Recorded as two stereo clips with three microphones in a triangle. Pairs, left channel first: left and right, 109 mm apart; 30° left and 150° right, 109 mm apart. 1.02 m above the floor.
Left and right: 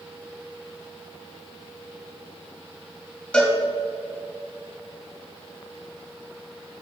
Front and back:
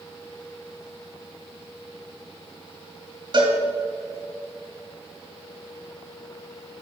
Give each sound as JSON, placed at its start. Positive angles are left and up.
{"t": 3.3, "sound": "a cowbell", "azimuth_deg": 170, "distance_m": 2.0}